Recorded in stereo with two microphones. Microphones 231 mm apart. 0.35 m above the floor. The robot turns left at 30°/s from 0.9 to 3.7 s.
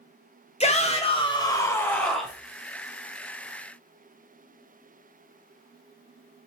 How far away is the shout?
About 1.1 m.